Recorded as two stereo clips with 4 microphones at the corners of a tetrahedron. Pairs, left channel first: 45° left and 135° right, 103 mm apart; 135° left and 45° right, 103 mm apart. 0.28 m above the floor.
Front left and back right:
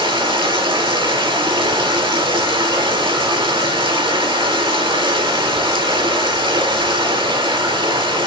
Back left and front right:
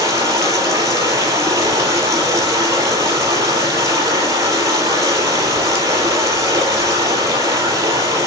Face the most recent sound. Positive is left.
turn(degrees=-105)